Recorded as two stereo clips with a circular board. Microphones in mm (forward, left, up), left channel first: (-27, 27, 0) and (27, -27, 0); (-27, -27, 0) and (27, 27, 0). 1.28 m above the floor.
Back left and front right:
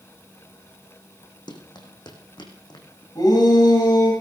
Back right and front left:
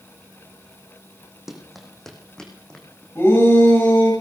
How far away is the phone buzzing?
I don't hear a phone buzzing.